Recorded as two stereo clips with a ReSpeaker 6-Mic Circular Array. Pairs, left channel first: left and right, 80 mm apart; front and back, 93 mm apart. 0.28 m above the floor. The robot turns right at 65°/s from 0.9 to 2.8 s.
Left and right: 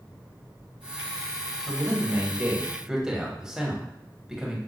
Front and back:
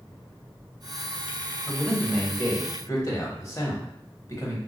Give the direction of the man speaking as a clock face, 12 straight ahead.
3 o'clock.